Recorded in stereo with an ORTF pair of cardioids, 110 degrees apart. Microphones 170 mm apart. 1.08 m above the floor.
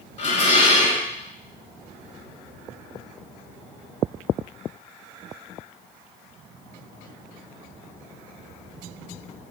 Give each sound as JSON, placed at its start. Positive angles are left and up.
{"t": 0.2, "sound": "dishes clattering", "azimuth_deg": 45, "distance_m": 2.0}